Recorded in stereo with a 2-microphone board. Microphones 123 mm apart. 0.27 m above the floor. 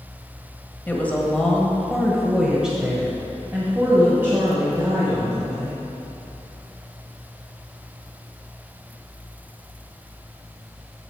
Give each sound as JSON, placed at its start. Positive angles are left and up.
{"t": 0.9, "sound": "a woman speaking", "side_deg": 15, "distance_m": 1.1}